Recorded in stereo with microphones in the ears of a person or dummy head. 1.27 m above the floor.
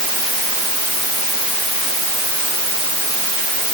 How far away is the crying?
No crying in this recording.